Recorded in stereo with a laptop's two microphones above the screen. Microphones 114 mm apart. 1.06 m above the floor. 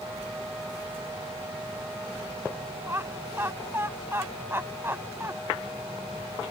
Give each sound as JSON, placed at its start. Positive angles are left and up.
{"t": 2.9, "sound": "laughter", "side_deg": -20}